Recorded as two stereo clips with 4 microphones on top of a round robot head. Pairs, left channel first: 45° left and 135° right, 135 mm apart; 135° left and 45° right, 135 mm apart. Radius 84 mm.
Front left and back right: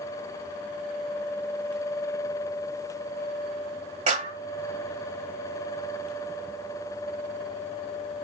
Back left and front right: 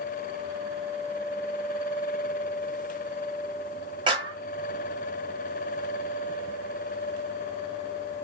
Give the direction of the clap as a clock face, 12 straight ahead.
3 o'clock.